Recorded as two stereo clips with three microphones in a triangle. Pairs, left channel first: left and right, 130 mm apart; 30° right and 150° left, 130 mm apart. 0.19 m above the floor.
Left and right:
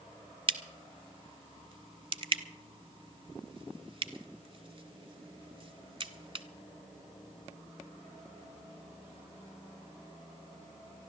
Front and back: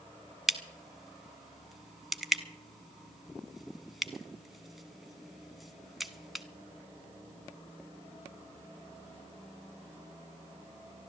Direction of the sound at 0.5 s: 120° right.